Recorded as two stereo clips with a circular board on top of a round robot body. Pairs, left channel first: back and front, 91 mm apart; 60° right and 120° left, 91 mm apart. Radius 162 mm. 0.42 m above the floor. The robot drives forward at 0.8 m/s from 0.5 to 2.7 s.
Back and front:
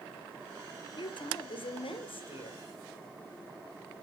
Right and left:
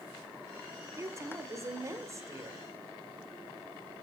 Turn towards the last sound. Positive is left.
turn(degrees=175)